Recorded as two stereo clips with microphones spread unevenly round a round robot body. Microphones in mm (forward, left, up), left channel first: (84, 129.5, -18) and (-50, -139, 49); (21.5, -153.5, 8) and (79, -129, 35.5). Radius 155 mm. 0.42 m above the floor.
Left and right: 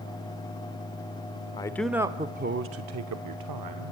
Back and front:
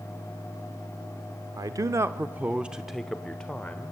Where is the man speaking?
30° left, 0.8 m; by 3.9 s 110° right, 1.4 m.